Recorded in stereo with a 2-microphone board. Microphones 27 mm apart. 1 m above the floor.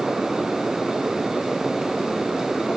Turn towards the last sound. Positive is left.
No sound to turn to.